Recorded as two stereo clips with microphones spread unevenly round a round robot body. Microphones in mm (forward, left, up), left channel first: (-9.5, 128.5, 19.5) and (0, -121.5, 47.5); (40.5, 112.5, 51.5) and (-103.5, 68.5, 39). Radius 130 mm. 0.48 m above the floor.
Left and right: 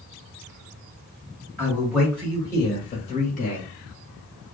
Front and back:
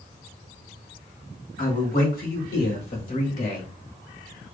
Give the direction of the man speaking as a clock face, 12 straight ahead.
12 o'clock.